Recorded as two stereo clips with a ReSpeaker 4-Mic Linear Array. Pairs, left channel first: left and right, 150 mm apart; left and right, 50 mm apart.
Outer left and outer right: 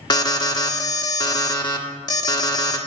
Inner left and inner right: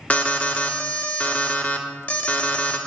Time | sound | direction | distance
0.1 | an alarm | 30° left (ahead or behind) | 1.1 m